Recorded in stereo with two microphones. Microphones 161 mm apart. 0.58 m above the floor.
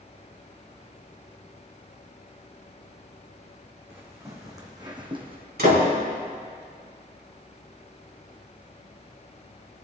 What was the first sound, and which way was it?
Footsteps, 15° right (ahead or behind).